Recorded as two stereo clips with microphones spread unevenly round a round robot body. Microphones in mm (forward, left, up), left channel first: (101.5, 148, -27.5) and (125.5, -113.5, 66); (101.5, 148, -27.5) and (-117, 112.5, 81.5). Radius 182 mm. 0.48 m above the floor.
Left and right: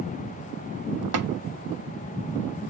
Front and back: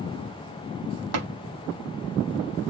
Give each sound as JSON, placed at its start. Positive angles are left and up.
{"t": 1.1, "sound": "tapping", "azimuth_deg": -130, "distance_m": 0.8}